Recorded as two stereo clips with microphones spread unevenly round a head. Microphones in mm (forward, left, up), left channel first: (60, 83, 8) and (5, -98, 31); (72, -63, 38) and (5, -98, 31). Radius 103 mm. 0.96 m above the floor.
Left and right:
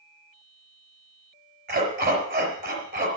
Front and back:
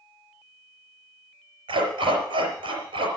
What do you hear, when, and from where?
1.7 s a dog barking: 155° right, 4.5 m